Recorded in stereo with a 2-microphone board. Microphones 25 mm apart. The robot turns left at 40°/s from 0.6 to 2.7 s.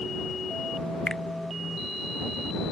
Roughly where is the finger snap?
Left.